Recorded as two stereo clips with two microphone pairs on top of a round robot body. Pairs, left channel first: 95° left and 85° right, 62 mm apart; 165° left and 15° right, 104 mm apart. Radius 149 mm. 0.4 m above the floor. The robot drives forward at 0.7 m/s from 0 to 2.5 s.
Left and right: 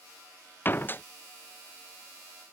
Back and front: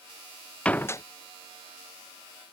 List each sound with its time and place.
0.7 s a door slam: 90° left; by 1.0 s 125° left